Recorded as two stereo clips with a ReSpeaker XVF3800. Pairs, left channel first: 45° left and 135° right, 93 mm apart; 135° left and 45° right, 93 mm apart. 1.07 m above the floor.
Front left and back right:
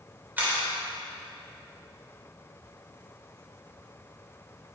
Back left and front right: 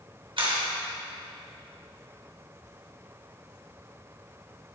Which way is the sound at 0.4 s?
65° right.